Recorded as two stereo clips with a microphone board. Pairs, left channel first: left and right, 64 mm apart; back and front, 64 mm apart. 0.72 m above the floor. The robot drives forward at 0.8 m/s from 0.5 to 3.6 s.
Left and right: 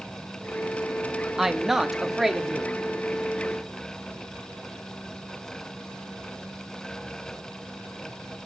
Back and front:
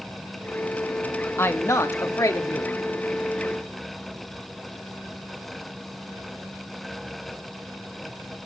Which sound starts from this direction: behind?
A woman speaking, at 1.4 s.